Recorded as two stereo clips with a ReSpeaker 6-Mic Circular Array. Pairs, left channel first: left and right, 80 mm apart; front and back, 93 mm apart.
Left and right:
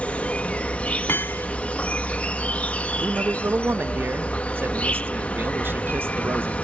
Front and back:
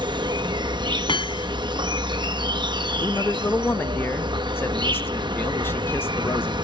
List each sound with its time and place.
0.0 s an insect: 160° left
1.1 s hammering: 30° left
3.0 s a man speaking: 50° right